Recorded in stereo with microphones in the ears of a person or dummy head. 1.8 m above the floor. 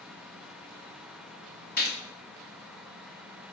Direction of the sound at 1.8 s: 50° left (ahead or behind).